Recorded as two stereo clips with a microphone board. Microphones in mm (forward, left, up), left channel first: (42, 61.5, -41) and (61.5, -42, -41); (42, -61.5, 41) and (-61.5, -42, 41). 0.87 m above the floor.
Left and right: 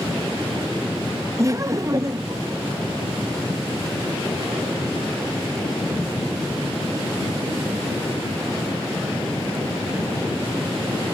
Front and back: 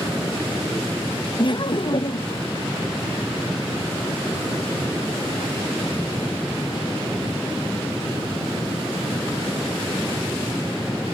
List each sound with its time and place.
1.4 s laughter: 30° right